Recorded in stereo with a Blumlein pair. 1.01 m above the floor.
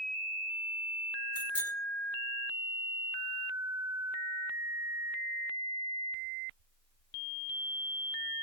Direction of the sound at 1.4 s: 70° left.